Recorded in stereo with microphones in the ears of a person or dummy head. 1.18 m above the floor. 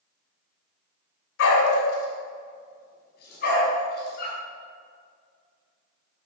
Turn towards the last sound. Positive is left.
turn(degrees=60)  # may be behind; listen again after turning